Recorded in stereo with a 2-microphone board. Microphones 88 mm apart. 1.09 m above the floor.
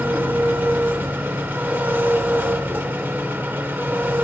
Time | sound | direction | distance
0.0 | an engine running | 25° right (ahead or behind) | 0.8 m